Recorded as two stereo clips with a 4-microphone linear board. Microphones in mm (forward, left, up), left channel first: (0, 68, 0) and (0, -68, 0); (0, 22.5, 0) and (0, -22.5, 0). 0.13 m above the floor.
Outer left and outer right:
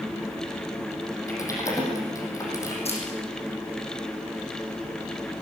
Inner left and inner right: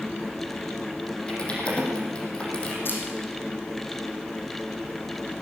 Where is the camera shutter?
50° left (ahead or behind), 6 m.